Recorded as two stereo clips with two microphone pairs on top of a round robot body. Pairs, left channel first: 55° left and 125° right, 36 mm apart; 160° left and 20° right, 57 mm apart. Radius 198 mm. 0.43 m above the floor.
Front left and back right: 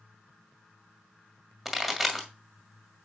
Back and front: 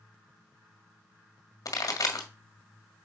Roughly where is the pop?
Behind left.